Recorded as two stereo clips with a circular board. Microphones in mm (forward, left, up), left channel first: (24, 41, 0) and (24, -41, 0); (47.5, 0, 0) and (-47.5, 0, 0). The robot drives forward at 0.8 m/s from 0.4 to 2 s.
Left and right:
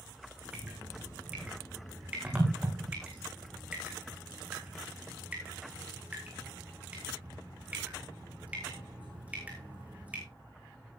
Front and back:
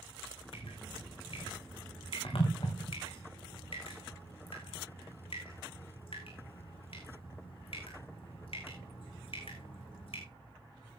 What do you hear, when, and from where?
0.5 s dripping: 15° right, 6 m; by 10.2 s 20° right, 5 m